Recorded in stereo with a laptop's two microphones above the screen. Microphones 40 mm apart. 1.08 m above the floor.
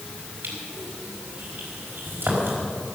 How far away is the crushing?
About 5 m.